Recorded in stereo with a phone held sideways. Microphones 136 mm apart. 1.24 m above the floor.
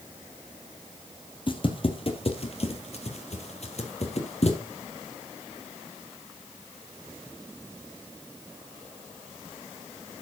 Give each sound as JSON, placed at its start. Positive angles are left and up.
{"t": 1.5, "sound": "footsteps", "side_deg": 40, "distance_m": 2.0}